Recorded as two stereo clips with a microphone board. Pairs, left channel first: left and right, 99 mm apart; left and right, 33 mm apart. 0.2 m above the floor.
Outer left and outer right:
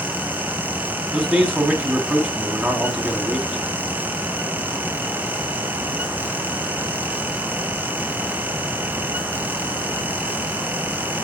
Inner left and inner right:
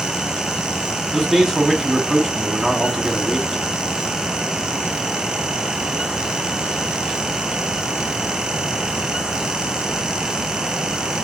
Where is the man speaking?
20° right (ahead or behind), 1.2 m.